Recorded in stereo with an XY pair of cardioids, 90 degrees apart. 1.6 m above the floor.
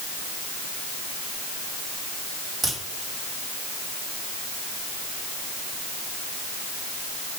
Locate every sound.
2.6 s a crack: 60° right, 4 m